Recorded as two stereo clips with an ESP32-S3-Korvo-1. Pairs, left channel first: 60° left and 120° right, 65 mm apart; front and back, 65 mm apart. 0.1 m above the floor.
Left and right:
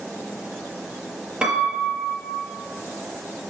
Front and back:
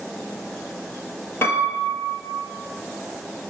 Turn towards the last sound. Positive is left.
turn(degrees=-45)